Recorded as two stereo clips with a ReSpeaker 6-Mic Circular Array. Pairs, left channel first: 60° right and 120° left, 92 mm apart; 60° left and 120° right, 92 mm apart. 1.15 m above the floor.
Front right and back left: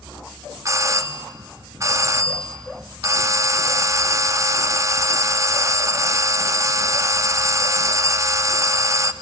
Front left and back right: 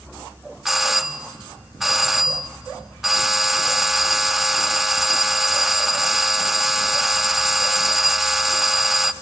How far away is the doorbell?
About 0.5 m.